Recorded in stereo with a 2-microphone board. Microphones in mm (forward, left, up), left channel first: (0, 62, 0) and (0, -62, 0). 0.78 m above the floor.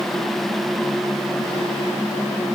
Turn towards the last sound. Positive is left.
No sound to turn to.